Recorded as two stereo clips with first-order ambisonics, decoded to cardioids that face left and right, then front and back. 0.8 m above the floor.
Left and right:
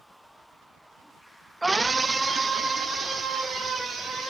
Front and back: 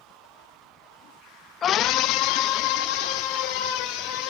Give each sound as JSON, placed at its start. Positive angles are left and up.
{"t": 1.6, "sound": "a scream", "azimuth_deg": -10, "distance_m": 0.5}